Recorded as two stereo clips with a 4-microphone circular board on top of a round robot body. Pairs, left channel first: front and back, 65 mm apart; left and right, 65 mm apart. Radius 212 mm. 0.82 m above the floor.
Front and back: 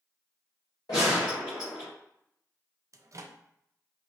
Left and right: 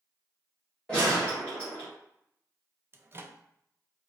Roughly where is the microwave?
Behind right.